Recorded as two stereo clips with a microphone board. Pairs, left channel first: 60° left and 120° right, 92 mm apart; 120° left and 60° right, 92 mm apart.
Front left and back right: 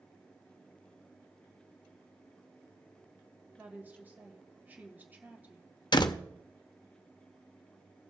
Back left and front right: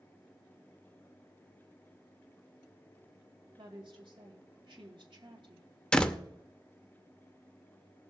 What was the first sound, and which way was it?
A woman speaking, 50° right.